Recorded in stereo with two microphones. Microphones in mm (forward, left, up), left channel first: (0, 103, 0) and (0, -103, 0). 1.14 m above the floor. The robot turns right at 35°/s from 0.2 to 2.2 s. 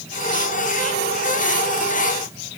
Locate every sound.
Only background noise.